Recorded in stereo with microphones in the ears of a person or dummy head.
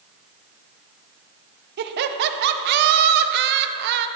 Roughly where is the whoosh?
No whoosh in this recording.